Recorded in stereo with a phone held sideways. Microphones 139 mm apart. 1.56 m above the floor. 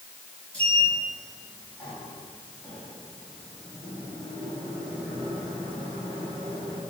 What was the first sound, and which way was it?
A sliding door, 10° left (ahead or behind).